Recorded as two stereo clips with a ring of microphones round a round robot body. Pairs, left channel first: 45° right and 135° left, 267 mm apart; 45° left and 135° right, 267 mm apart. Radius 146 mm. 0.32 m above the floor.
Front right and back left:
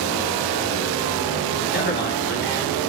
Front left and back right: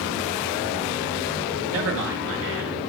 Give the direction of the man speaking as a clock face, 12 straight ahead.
3 o'clock.